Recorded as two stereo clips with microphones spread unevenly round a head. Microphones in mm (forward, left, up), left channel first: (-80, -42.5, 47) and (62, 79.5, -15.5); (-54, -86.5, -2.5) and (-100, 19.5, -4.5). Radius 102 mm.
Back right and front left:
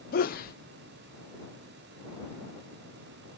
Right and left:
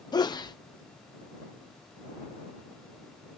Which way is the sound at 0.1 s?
115° right.